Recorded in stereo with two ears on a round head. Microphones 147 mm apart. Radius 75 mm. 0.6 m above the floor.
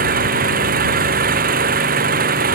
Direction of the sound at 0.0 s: 60° right (ahead or behind).